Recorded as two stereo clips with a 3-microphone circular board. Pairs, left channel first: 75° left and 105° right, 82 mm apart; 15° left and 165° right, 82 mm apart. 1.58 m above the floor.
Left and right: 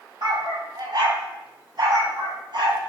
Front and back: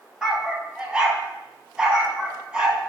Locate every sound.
0.2 s a dog barking: 85° right, 3.5 m